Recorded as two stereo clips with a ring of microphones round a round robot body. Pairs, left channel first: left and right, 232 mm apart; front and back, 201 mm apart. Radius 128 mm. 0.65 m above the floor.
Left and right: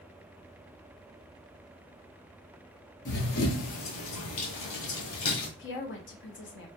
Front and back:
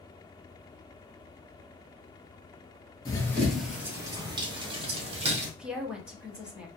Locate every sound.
3.0 s running footsteps: 60° left, 0.8 m; by 5.5 s 125° left, 1.7 m
5.6 s a woman speaking: 95° left, 0.9 m